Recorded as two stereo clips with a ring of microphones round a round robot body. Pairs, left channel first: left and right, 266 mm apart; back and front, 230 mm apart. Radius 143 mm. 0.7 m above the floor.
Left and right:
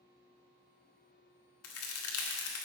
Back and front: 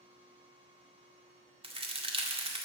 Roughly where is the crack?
Ahead left.